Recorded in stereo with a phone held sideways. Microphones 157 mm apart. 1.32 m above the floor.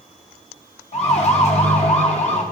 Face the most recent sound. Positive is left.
turn(degrees=45)  # may be behind; listen again after turning